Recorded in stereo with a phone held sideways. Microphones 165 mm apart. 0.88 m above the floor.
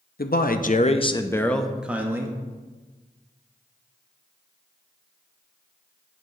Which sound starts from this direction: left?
A man speaking, at 0.2 s.